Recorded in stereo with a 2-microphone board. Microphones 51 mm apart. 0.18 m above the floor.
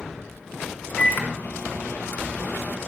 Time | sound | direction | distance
1.0 | a microwave | 40° left (ahead or behind) | 1.0 m